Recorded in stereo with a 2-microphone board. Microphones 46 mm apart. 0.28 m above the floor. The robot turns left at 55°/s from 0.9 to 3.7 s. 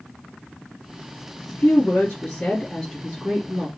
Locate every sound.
1.5 s a woman speaking: 70° left, 2.5 m; by 3.7 s 50° right, 2.5 m